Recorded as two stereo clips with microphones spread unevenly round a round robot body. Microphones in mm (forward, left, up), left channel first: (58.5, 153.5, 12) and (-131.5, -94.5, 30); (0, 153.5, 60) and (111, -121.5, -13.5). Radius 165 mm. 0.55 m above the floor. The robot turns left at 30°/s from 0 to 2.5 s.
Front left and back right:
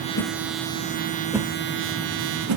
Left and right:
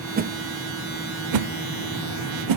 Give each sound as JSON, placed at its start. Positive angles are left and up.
{"t": 0.2, "sound": "a whoosh", "azimuth_deg": -5, "distance_m": 0.8}